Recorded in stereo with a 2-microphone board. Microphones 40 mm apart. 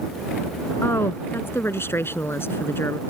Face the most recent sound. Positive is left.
turn(degrees=70)  # may be behind; listen again after turning